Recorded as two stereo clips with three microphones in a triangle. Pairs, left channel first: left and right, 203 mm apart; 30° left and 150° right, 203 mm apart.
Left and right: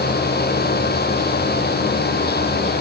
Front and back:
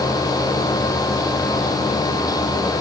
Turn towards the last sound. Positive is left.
No sound to turn to.